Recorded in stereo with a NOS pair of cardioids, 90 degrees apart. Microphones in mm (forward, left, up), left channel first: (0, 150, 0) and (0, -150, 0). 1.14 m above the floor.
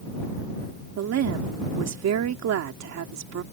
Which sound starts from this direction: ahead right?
A woman speaking, at 1.0 s.